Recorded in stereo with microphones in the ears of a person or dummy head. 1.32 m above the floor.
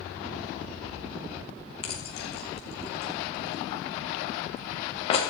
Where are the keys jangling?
35° left (ahead or behind), 1.8 m.